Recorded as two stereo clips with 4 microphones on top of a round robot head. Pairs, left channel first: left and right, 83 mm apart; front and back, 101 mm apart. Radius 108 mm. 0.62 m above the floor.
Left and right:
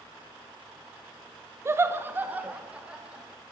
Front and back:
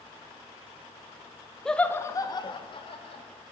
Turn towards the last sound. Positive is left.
turn(degrees=-10)